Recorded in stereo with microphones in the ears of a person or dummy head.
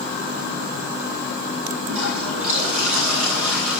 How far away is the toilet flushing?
About 9.5 m.